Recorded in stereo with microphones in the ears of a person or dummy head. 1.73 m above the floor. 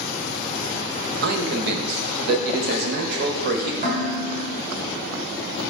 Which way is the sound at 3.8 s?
25° right (ahead or behind).